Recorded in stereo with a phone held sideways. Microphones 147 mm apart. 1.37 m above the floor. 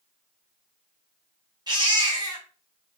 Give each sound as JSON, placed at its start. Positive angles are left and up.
{"t": 1.7, "sound": "a baby crying", "side_deg": -30, "distance_m": 0.8}